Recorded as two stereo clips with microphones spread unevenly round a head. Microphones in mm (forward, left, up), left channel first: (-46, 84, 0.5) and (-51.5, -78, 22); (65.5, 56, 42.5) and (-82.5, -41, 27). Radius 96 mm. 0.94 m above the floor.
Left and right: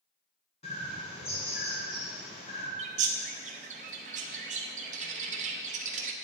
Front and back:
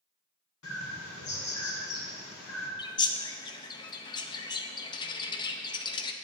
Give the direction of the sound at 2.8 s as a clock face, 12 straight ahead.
1 o'clock.